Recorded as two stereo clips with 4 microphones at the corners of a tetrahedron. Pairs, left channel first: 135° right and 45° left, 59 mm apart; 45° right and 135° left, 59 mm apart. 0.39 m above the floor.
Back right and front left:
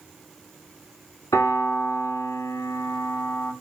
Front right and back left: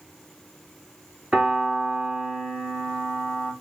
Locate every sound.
1.3 s a piano: 150° right, 1.1 m